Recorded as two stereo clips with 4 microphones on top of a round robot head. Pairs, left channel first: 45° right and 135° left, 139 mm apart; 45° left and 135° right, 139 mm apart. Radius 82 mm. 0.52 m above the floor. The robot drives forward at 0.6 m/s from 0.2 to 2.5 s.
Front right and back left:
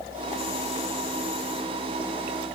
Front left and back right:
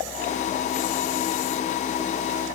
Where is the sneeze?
No sneeze in this recording.